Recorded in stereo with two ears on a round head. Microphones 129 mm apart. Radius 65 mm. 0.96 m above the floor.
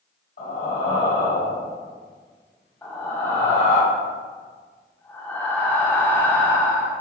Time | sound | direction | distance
0.4 | breathing | 70° left (ahead or behind) | 1.8 m
2.8 | breathing | 15° left (ahead or behind) | 0.5 m